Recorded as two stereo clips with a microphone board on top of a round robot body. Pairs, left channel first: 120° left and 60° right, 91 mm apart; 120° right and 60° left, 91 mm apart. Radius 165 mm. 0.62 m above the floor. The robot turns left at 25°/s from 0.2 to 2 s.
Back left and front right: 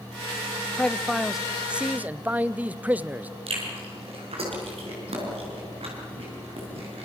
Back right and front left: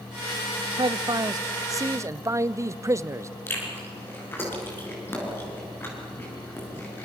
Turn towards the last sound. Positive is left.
turn(degrees=-50)